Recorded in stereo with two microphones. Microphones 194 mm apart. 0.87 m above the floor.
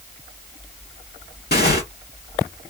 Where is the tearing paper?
60° left (ahead or behind), 1.9 m.